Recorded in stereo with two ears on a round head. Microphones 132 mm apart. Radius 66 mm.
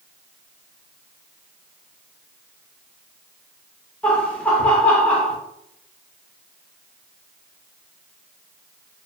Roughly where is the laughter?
Centre.